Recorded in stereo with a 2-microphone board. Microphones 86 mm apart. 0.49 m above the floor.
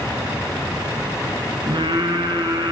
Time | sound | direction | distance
1.7 | singing | 60° right (ahead or behind) | 4.5 m